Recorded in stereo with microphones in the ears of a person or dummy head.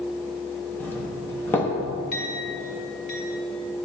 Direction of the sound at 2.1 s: 70° left (ahead or behind).